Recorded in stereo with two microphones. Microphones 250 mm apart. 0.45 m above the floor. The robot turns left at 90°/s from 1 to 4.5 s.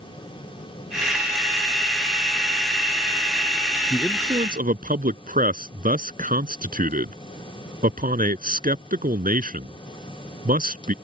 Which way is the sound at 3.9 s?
15° left (ahead or behind).